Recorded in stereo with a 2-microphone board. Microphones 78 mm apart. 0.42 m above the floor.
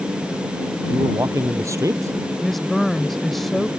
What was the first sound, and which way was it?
A man speaking, 40° right (ahead or behind).